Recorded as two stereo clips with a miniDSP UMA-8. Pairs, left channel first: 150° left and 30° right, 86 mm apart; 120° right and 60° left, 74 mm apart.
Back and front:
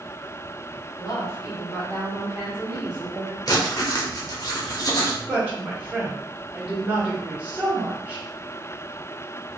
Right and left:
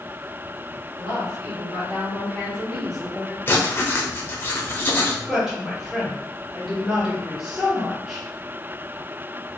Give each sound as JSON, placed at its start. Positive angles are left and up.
{"t": 1.0, "sound": "a woman speaking", "azimuth_deg": 135, "distance_m": 2.0}
{"t": 3.5, "sound": "writing", "azimuth_deg": -175, "distance_m": 0.6}
{"t": 5.3, "sound": "a woman speaking", "azimuth_deg": -10, "distance_m": 1.3}